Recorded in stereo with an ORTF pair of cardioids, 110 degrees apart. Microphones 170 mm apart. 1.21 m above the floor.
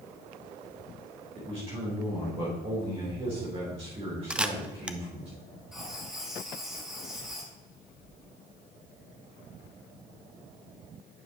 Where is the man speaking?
35° right, 4 m.